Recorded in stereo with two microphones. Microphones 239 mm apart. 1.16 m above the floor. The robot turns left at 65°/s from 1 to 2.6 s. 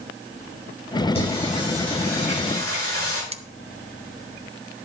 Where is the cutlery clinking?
25° right (ahead or behind), 0.5 m.